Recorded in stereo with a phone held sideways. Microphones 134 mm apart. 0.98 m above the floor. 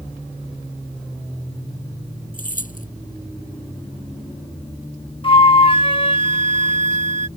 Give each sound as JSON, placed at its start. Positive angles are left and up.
{"t": 2.3, "sound": "keys jangling", "side_deg": 85}
{"t": 5.2, "sound": "a flute", "side_deg": 40}